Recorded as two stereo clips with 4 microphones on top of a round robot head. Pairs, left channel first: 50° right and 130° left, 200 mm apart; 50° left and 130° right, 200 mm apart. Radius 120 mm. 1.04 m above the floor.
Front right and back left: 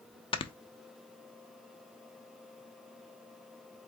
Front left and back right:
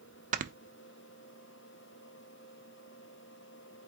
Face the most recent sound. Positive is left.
turn(degrees=-100)